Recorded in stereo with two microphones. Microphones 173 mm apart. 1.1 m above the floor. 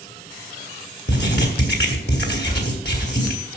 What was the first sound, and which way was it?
Writing, 80° left.